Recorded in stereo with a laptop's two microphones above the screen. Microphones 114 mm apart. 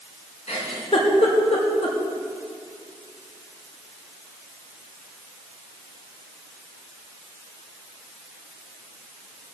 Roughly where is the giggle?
Left.